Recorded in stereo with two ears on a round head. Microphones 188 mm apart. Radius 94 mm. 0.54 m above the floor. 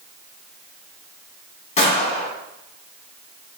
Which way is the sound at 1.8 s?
30° left (ahead or behind).